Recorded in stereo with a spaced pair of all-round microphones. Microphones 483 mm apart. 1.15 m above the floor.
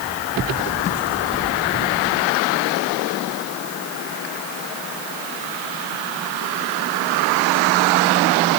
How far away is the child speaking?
I don't hear a child speaking.